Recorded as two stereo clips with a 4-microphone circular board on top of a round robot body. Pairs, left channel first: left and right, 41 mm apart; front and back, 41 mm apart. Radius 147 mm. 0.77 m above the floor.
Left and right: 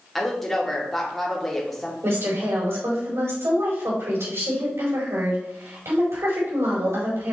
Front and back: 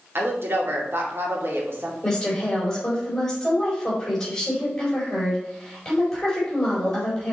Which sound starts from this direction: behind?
A woman speaking, at 0.1 s.